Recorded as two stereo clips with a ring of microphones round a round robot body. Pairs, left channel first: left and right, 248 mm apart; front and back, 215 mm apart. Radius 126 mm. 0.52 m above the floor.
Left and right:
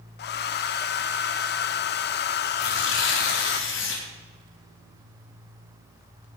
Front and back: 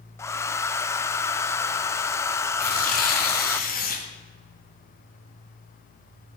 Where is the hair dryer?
75° left, 0.5 m.